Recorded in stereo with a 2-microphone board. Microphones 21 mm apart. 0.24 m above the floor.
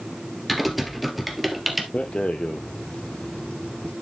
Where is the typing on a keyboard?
Centre (ahead or behind), 2 m.